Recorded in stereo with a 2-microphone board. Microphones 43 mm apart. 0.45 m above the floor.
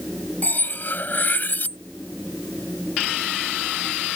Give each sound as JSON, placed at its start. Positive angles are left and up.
{"t": 0.4, "sound": "cutlery clinking", "side_deg": 45}